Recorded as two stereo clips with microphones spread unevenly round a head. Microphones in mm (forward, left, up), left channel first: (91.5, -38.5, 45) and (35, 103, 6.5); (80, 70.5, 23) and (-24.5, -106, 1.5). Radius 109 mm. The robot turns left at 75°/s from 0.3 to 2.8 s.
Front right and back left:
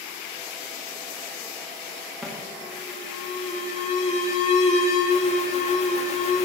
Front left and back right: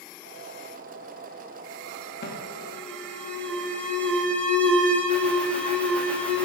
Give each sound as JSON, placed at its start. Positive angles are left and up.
{"t": 2.2, "sound": "an alarm", "azimuth_deg": 20, "distance_m": 0.8}